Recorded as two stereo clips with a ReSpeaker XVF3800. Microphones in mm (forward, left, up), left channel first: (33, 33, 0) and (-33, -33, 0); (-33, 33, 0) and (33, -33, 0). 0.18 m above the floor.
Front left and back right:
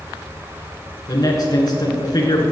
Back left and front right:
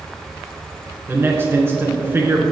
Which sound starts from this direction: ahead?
A man speaking, at 1.1 s.